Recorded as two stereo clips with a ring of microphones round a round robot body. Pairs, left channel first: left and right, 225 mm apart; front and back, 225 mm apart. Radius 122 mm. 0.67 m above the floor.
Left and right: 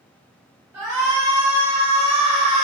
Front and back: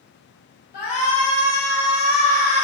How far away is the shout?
About 0.6 m.